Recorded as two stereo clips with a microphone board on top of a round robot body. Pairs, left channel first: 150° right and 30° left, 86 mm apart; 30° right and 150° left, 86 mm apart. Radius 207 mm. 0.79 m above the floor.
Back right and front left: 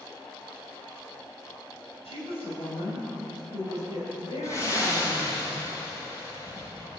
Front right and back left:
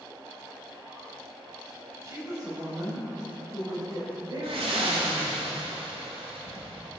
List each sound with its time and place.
2.0 s a woman speaking: 155° right, 4 m; by 5.4 s 175° right, 4.5 m
4.4 s breathing: 155° left, 3 m